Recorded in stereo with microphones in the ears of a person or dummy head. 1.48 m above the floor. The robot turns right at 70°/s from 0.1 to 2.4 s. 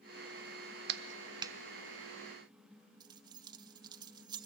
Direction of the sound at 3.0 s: 25° right (ahead or behind).